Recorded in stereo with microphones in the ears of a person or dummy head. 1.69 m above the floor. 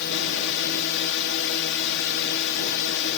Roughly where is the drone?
Left.